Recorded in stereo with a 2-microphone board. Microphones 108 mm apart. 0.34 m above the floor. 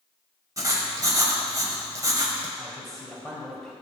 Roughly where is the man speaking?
Centre.